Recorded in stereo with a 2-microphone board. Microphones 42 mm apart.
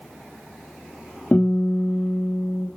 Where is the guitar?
45° left (ahead or behind), 2.5 m.